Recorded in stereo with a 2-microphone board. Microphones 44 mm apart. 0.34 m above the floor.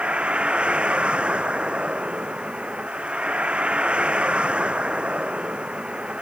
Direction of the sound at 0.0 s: 25° right (ahead or behind).